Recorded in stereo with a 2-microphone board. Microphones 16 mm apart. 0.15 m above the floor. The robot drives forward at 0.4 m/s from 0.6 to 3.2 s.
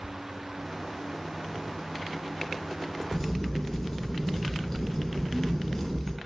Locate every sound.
3.1 s a crack: 25° left (ahead or behind), 1.6 m